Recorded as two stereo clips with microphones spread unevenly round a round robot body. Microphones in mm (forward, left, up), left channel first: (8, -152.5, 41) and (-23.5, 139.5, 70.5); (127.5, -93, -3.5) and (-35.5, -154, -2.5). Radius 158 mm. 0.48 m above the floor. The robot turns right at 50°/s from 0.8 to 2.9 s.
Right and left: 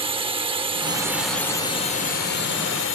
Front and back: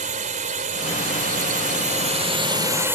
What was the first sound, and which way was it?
A drone, 170° left.